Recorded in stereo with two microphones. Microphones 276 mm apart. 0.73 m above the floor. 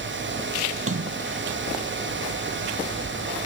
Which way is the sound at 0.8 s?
50° right (ahead or behind).